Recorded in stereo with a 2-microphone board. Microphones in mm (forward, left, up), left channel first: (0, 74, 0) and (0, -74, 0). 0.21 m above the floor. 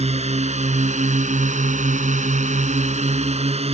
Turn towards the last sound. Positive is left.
turn(degrees=-45)  # may be behind; listen again after turning